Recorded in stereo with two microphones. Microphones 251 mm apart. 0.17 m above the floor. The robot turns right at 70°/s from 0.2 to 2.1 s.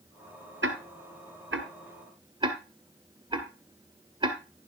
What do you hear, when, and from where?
0.6 s ticking: 50° right (ahead or behind), 1.6 m; by 4.4 s 20° right (ahead or behind), 1.6 m